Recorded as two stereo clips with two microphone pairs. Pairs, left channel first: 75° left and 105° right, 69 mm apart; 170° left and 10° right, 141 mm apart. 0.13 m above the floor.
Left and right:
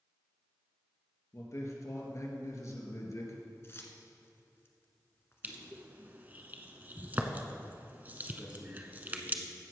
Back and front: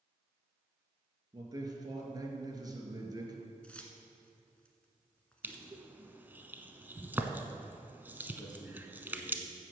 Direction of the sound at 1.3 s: 45° left.